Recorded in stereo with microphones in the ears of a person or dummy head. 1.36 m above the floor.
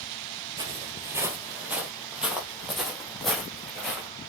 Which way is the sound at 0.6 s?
20° right (ahead or behind).